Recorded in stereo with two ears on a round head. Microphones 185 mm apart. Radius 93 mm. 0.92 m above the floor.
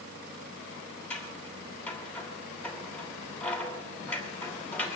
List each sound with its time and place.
1.1 s scissors: 5° left (ahead or behind), 2 m